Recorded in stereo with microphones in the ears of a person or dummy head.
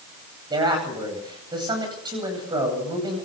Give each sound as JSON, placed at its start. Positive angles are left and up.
{"t": 0.5, "sound": "a man speaking", "side_deg": -20, "distance_m": 9.5}